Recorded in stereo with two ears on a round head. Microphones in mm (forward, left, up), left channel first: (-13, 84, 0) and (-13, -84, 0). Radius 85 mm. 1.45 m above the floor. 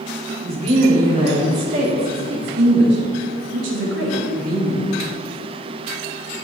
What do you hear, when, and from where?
0.4 s a woman speaking: 35° right (ahead or behind), 4.5 m; by 4.9 s 80° right, 3.5 m